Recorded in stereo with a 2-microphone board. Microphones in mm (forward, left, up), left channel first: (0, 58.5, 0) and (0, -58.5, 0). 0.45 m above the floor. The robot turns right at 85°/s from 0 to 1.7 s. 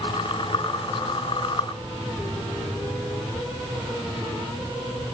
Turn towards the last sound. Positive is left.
No sound to turn to.